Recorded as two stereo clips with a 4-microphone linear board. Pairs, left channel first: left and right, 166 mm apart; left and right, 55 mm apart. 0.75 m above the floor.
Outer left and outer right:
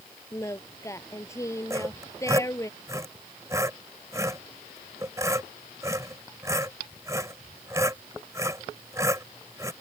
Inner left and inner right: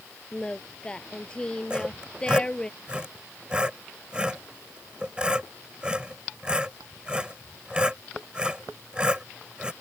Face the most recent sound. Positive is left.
turn(degrees=-20)  # may be behind; listen again after turning